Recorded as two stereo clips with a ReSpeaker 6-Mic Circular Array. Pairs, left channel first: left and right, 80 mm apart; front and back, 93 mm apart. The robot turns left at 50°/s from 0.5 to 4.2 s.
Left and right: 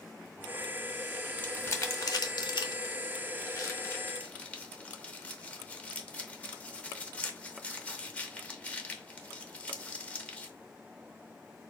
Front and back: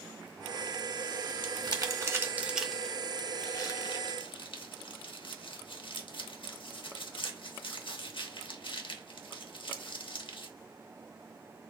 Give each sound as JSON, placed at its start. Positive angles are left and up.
{"t": 1.4, "sound": "crumpling", "azimuth_deg": 155, "distance_m": 0.7}